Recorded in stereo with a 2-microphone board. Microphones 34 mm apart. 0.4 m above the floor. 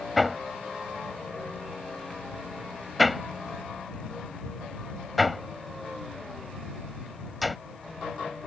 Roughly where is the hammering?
Centre.